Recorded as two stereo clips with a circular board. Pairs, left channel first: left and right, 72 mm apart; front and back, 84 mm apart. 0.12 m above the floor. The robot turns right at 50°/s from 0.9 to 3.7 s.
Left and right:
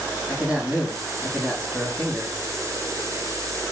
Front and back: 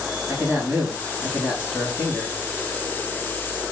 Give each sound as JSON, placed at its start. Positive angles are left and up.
{"t": 0.3, "sound": "a man speaking", "azimuth_deg": -155, "distance_m": 1.2}